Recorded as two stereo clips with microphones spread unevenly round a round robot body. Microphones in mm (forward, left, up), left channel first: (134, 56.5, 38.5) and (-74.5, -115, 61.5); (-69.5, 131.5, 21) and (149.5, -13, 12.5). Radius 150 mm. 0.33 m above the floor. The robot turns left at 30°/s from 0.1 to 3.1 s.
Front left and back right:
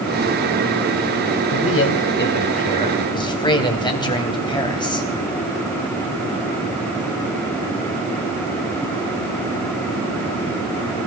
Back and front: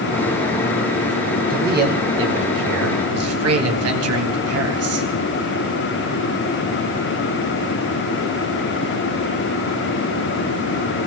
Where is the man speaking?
20° left, 3 m; by 5.1 s 30° right, 3 m.